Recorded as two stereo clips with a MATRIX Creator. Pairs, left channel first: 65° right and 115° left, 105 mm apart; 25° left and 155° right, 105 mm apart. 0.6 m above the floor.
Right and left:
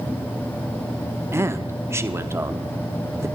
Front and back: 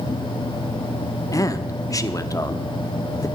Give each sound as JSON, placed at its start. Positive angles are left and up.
{"t": 1.3, "sound": "a man speaking", "azimuth_deg": 60, "distance_m": 0.8}